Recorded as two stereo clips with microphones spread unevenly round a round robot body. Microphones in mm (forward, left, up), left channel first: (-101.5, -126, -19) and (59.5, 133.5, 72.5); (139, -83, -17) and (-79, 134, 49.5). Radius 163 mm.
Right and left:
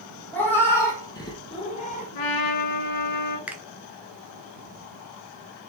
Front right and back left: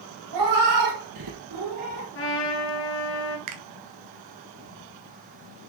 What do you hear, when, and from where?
0.3 s a cat meowing: 150° left, 3 m; by 2.1 s 175° left, 1.5 m
2.1 s a trumpet: 100° right, 1.8 m
3.5 s a finger snap: 155° left, 1.4 m